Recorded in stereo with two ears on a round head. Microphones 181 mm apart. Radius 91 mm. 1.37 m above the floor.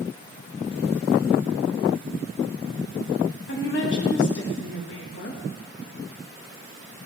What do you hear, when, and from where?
3.5 s a woman speaking: 65° left (ahead or behind), 2 m